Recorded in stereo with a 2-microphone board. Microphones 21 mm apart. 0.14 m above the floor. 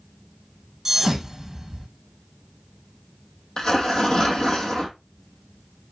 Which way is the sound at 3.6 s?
40° left (ahead or behind).